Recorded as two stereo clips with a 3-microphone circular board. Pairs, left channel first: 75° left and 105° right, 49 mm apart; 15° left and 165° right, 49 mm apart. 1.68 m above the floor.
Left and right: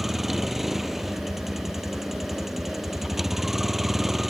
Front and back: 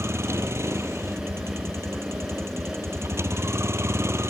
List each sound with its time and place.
0.0 s a vehicle: 170° left